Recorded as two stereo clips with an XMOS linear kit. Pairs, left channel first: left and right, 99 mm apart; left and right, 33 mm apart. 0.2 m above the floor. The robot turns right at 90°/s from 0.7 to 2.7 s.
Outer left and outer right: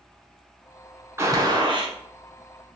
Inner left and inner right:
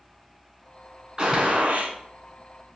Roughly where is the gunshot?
Behind right.